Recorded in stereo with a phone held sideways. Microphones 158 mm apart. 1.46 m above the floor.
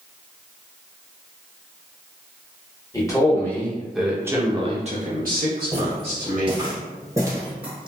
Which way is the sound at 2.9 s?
20° left (ahead or behind).